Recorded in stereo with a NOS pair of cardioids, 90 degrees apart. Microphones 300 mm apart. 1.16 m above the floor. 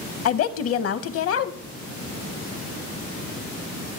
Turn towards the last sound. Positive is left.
turn(degrees=50)